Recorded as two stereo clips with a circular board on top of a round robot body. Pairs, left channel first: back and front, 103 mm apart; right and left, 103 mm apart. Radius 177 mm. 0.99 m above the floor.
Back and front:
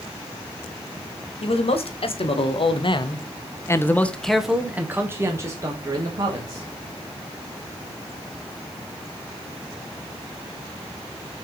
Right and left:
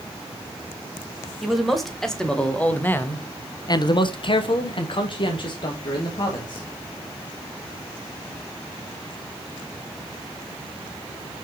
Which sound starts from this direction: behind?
A man speaking, at 1.4 s.